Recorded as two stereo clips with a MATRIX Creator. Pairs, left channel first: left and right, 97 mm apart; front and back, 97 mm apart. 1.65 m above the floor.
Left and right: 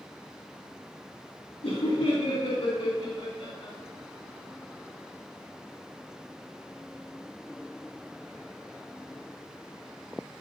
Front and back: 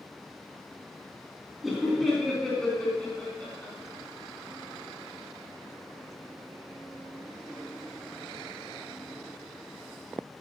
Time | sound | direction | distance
1.6 | laughter | 90° left | 3.5 m